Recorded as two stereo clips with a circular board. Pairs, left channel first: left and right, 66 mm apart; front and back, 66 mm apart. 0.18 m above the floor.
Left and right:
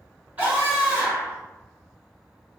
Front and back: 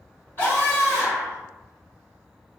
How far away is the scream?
About 1.9 m.